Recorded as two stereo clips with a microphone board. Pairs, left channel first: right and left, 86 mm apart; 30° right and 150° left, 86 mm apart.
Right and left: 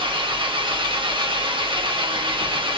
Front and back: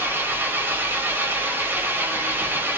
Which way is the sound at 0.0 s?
85° left.